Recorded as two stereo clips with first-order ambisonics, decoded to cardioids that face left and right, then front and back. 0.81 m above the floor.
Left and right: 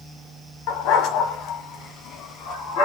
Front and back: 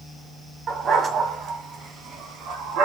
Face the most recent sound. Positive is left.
turn(degrees=140)